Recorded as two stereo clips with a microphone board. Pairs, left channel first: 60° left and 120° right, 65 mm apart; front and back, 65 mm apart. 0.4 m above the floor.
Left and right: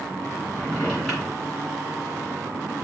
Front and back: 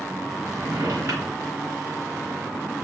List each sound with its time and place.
0.5 s a drawer: 150° left, 2.5 m